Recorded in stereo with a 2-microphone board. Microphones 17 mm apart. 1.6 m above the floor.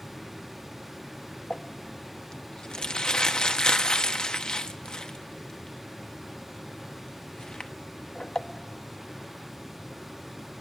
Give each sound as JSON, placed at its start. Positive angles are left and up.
{"t": 1.5, "sound": "crumpling", "side_deg": 55, "distance_m": 1.0}